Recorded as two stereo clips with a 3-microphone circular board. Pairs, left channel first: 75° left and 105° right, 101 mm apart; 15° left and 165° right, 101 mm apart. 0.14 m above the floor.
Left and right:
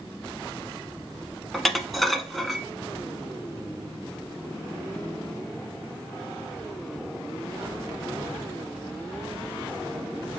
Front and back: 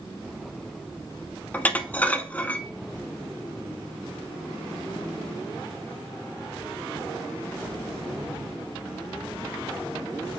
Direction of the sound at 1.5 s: 10° right.